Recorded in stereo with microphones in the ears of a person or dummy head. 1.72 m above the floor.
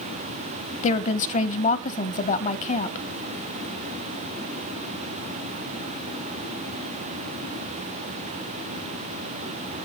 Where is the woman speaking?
40° left (ahead or behind), 1.2 m.